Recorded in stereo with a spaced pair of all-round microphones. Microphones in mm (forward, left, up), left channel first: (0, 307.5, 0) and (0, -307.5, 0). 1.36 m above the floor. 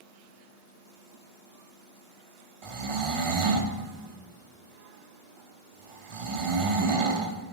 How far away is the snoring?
About 0.7 m.